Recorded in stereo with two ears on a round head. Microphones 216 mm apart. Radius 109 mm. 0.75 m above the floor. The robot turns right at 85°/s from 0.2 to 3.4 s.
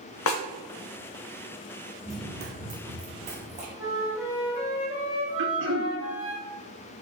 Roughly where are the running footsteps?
Centre.